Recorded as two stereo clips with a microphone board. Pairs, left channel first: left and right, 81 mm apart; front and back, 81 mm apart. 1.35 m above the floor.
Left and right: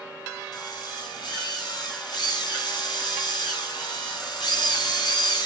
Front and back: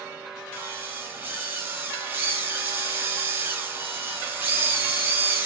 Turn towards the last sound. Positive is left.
turn(degrees=115)